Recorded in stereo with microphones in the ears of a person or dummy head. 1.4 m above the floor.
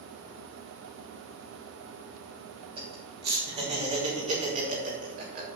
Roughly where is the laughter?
Right.